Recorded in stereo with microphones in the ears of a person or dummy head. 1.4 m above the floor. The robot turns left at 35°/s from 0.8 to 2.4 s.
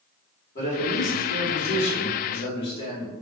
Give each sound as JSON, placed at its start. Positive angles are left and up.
{"t": 0.6, "sound": "a man speaking", "azimuth_deg": 125, "distance_m": 1.5}